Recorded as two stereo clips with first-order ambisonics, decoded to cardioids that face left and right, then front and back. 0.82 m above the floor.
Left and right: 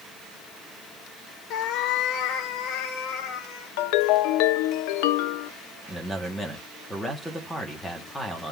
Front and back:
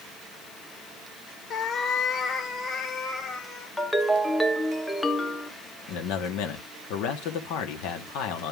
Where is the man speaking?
Straight ahead, 1.5 m.